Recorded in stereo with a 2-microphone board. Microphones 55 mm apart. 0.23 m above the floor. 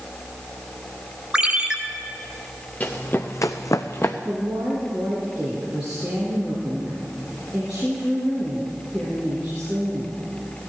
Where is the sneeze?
I don't hear a sneeze.